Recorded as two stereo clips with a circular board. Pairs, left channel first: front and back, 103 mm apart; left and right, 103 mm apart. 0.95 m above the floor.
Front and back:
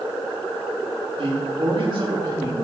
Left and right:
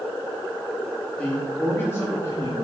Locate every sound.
1.2 s a man speaking: 170° left, 2 m; by 2.6 s 135° left, 1.9 m